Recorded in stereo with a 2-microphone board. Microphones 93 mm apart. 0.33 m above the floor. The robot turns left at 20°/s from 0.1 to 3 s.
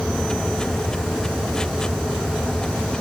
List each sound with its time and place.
Only background noise.